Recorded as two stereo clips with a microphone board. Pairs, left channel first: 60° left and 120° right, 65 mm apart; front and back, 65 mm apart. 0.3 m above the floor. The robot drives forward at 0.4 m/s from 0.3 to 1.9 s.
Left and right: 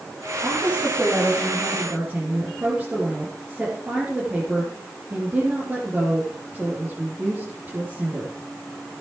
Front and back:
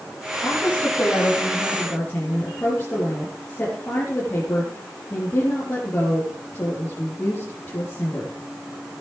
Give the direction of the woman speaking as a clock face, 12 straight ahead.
2 o'clock.